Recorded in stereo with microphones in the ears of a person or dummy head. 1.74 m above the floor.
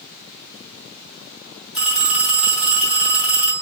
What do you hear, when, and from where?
1.7 s a phone ringing: 35° left (ahead or behind), 1.3 m